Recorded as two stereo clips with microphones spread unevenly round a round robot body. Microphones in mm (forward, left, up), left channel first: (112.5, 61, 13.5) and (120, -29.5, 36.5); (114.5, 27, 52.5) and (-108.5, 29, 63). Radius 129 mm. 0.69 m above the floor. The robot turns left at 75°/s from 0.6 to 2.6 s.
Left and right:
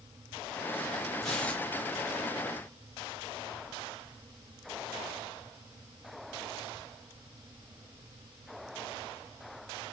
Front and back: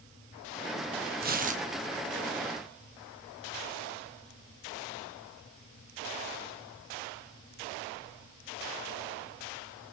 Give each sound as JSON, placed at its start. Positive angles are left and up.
{"t": 1.2, "sound": "tearing paper", "azimuth_deg": 165, "distance_m": 1.1}